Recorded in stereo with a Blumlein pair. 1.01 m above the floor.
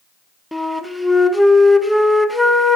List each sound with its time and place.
0.5 s a flute: straight ahead, 0.8 m